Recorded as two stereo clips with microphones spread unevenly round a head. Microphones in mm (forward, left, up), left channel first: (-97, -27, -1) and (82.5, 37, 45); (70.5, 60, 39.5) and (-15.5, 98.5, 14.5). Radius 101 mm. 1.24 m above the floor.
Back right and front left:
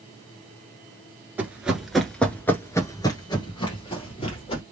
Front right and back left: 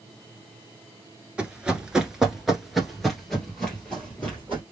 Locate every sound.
1.4 s running footsteps: 60° left, 1.3 m; by 4.6 s 95° right, 2 m